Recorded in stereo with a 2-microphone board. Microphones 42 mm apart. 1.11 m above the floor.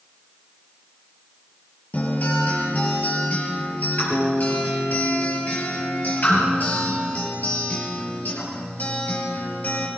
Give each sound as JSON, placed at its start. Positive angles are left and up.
{"t": 1.9, "sound": "a guitar", "side_deg": 45, "distance_m": 4.5}